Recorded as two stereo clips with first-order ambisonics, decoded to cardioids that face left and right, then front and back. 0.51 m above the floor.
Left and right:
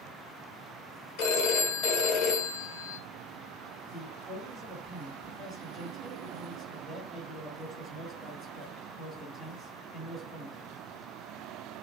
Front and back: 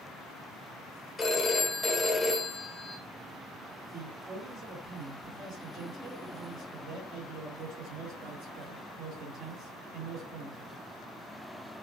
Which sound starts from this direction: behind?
A man speaking, at 3.9 s.